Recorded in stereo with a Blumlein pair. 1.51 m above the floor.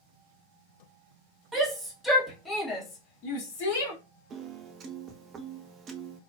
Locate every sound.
1.5 s a shout: 15° right, 1.7 m; by 3.9 s 60° left, 1.4 m
4.3 s a piano: 25° right, 0.5 m